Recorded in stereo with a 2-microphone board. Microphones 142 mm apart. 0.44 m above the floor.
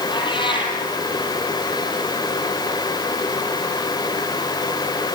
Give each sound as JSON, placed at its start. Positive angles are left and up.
{"t": 0.1, "sound": "a cat meowing", "side_deg": 35, "distance_m": 4.0}